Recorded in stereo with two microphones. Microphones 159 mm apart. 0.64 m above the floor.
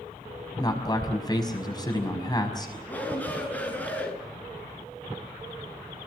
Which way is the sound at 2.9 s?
10° left (ahead or behind).